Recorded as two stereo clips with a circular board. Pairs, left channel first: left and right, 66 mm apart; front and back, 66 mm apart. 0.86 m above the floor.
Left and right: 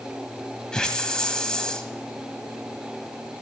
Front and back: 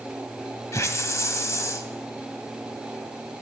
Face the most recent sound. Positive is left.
turn(degrees=15)